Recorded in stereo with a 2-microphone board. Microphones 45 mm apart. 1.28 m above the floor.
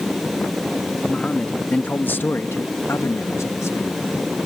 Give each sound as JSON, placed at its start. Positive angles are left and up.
{"t": 1.1, "sound": "a man speaking", "side_deg": 20}